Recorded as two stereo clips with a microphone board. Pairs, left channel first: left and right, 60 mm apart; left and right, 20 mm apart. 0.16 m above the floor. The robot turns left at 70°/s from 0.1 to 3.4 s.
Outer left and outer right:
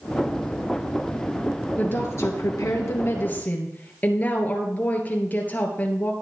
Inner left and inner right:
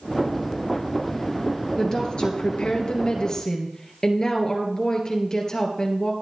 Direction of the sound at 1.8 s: 145° left.